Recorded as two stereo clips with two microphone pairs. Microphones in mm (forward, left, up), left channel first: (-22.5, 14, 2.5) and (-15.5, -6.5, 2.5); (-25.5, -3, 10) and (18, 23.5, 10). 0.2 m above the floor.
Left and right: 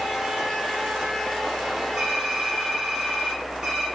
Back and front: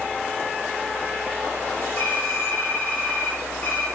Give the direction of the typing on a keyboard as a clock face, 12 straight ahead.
3 o'clock.